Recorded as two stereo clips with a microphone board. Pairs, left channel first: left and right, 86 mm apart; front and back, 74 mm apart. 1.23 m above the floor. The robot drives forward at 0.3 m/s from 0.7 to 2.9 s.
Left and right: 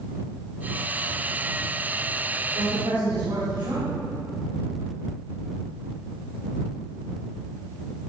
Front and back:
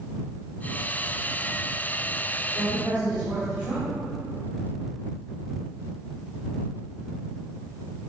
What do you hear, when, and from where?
2.5 s a woman speaking: 115° right, 3 m